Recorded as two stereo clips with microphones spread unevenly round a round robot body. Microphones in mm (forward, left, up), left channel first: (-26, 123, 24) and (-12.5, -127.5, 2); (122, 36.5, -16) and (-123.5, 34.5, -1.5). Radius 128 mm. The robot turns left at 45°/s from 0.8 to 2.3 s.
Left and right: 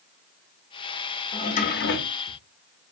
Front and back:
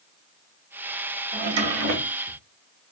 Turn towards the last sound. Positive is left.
turn(degrees=120)